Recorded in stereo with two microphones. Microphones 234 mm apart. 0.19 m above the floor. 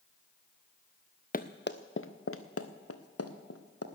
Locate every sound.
1.3 s running footsteps: 35° left (ahead or behind), 0.9 m; by 3.9 s 85° left, 2.0 m